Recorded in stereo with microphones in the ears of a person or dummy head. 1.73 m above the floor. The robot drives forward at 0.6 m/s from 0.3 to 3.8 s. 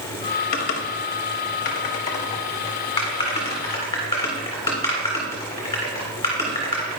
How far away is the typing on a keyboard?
About 0.8 m.